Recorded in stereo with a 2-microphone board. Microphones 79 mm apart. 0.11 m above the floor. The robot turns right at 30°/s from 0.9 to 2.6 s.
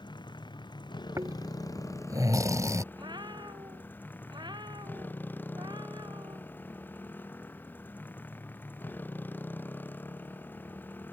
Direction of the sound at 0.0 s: 105° left.